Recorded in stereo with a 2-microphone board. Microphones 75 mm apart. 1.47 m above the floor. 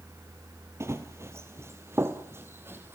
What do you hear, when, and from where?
0.8 s running footsteps: 35° right (ahead or behind), 1.8 m; by 3.0 s 30° right (ahead or behind), 2.5 m